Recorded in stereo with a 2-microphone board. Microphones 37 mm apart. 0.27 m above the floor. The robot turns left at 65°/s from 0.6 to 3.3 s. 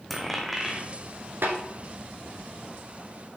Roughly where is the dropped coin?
Centre.